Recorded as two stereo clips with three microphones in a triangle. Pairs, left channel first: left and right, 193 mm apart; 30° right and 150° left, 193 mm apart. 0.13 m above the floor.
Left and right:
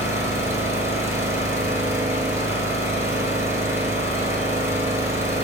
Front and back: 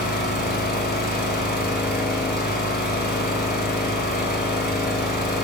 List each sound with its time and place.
0.0 s an engine running: 15° right, 0.9 m